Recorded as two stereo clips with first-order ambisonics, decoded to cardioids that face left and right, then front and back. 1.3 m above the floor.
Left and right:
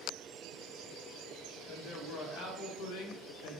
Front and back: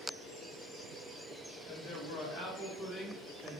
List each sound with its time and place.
1.7 s a man speaking: 35° left, 1.1 m; by 3.6 s 100° left, 0.6 m